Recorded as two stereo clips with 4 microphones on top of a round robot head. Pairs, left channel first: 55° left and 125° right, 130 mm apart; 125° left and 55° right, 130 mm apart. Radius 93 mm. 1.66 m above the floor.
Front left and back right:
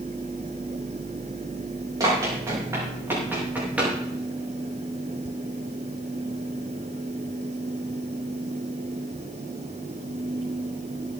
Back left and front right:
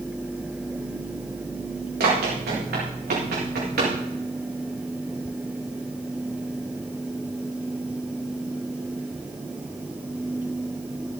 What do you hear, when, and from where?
2.0 s running footsteps: 60° right, 7 m; by 3.9 s 45° right, 7.5 m